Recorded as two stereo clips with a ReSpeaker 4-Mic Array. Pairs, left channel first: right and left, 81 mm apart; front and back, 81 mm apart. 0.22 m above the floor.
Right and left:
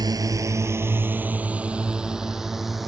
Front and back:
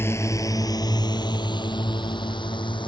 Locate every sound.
0.0 s a drone: 60° left; by 2.9 s 5° left